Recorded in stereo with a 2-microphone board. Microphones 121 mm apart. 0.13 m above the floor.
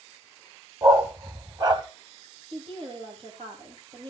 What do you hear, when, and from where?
0.8 s a dog barking: 35° right (ahead or behind), 1.5 m
2.5 s a woman speaking: 45° right (ahead or behind), 5 m